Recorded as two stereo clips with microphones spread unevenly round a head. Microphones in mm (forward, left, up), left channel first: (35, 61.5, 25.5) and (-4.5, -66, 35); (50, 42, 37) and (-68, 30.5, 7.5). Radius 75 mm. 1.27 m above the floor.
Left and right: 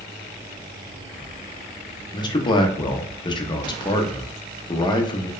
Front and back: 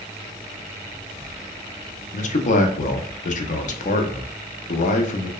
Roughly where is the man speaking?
Ahead left.